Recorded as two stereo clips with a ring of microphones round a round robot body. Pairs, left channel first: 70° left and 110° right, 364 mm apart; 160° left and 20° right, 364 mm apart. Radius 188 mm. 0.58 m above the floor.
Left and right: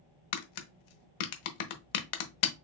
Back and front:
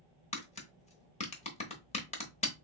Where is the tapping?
85° left, 0.8 m.